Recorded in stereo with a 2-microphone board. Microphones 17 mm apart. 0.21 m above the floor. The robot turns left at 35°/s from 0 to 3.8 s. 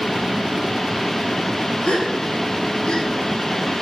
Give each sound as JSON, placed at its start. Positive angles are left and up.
{"t": 1.9, "sound": "a gasp", "side_deg": 80, "distance_m": 9.0}